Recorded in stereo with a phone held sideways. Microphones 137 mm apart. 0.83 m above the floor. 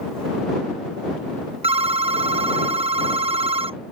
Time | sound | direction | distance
1.6 | a phone ringing | 40° right (ahead or behind) | ?